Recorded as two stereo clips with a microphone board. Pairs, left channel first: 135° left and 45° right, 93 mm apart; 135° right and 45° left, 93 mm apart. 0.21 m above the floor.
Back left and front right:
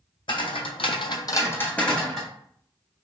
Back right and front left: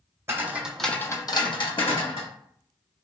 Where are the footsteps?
110° left, 0.8 m; by 2.3 s 135° right, 1.2 m.